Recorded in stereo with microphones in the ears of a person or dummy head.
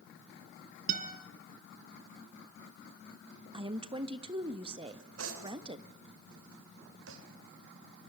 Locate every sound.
0.9 s a guitar: 50° right (ahead or behind), 2.5 m
3.5 s a woman speaking: 30° right (ahead or behind), 1.2 m
4.9 s cutlery clinking: 85° right, 3.5 m